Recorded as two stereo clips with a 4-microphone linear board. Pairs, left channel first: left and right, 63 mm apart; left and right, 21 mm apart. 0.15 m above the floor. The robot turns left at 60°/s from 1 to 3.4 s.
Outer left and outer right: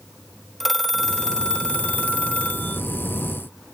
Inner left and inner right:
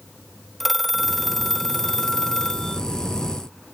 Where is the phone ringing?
Centre (ahead or behind); by 2.8 s 20° left (ahead or behind).